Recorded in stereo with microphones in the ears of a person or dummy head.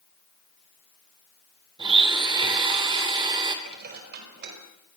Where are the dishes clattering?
55° right (ahead or behind), 5.5 m.